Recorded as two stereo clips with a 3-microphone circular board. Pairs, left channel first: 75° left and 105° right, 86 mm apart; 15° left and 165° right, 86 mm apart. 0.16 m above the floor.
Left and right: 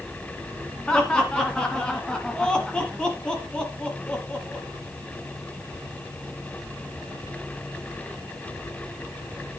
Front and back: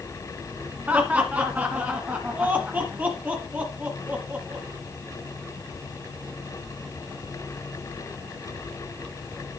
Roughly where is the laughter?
Behind left.